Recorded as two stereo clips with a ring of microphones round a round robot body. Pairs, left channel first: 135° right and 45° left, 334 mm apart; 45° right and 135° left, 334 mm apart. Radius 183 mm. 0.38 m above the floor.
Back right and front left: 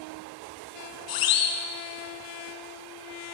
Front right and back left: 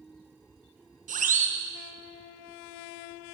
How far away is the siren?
About 4 m.